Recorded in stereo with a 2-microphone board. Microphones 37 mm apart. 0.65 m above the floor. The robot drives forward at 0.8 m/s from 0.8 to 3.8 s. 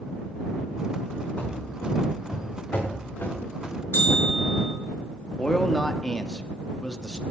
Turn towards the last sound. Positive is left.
turn(degrees=20)  # may be behind; listen again after turning